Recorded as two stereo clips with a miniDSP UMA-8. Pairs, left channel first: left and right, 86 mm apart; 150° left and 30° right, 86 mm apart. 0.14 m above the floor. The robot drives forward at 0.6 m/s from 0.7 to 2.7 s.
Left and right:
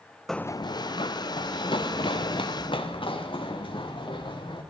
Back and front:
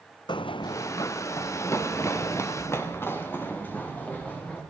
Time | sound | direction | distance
0.3 | running footsteps | 175° left | 0.5 m